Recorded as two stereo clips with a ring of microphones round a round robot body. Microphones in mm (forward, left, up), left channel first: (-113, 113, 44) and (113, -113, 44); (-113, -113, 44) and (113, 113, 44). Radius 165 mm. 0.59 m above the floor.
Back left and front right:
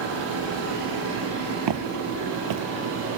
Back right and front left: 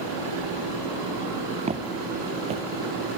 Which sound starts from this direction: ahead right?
Footsteps, at 1.7 s.